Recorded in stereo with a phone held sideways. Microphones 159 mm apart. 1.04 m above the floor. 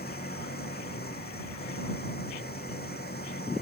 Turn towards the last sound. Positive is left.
turn(degrees=90)